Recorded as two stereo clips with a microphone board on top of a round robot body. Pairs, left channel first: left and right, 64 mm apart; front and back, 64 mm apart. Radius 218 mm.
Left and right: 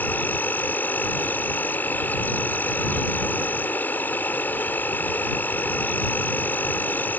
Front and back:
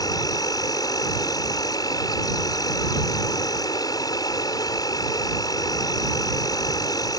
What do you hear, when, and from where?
0.0 s an insect: 25° left